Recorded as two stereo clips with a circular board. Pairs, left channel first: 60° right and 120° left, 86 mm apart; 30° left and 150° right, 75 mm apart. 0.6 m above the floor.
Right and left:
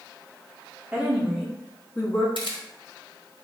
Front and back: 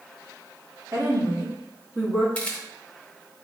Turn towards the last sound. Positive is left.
turn(degrees=-45)